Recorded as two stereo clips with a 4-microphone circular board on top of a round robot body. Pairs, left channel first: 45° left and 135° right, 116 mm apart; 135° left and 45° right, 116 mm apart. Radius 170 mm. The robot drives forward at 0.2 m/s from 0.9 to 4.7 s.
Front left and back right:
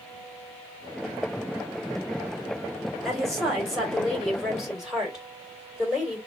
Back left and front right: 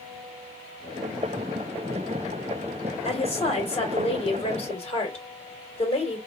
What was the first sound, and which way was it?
A woman speaking, 130° left.